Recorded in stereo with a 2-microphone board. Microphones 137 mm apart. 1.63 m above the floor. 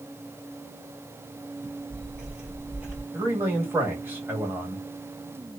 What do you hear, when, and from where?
1.6 s footsteps: 5° right (ahead or behind), 1.7 m; by 3.0 s 10° right (ahead or behind), 1.7 m
3.1 s a man speaking: 15° right (ahead or behind), 1.4 m